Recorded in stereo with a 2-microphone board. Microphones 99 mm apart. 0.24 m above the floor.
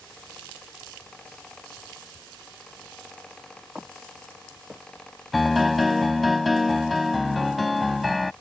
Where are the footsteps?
10° right (ahead or behind); by 5.6 s 5° right (ahead or behind).